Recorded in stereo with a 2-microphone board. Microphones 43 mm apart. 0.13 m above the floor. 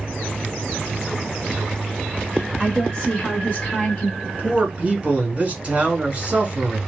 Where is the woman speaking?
15° left (ahead or behind), 1.6 m; by 4.1 s 35° left (ahead or behind), 1.2 m.